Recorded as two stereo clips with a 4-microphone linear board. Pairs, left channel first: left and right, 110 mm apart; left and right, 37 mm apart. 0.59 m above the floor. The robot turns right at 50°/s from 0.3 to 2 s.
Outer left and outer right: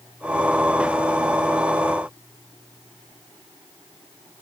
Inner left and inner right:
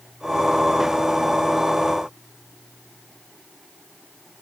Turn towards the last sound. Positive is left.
No sound to turn to.